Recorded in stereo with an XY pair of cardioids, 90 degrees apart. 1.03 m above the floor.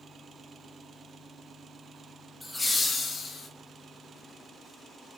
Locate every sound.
2.4 s laughter: 15° left, 0.9 m; by 3.5 s 65° left, 1.0 m